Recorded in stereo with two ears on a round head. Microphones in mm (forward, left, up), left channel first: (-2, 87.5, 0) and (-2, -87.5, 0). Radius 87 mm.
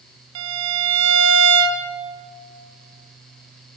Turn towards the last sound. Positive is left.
turn(degrees=-75)  # may be behind; listen again after turning